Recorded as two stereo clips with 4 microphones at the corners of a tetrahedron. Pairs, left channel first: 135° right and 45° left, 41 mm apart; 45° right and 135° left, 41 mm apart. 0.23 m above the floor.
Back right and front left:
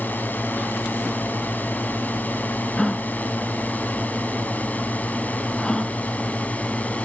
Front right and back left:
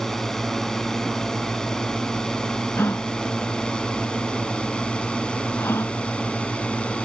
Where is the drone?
125° right; by 7.0 s 95° right.